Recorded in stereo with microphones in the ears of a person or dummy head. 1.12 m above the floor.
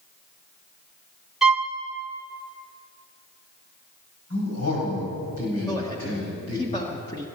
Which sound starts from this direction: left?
A man speaking, at 4.3 s.